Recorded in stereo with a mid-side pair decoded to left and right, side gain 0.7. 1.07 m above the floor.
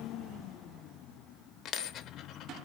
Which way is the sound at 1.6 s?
55° left.